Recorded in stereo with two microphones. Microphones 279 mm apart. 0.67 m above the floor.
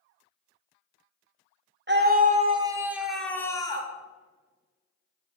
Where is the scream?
40° right (ahead or behind), 1.6 m; by 3.9 s 15° left (ahead or behind), 2 m.